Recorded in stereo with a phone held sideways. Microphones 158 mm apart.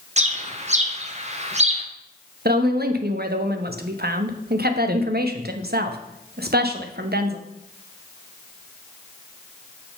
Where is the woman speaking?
80° right, 0.9 m.